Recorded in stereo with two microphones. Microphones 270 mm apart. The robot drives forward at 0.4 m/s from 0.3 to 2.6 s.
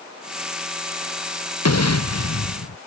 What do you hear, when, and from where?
1.6 s an explosion: 90° left; by 2.8 s 85° left